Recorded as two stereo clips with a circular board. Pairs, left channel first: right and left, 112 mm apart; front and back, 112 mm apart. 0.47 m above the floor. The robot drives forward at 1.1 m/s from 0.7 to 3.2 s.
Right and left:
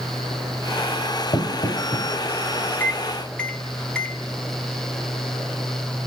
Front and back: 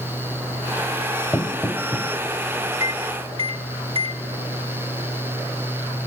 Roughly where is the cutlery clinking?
I don't hear cutlery clinking.